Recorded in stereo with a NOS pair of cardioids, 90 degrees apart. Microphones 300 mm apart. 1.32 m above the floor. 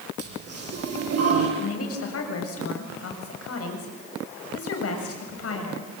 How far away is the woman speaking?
About 7 m.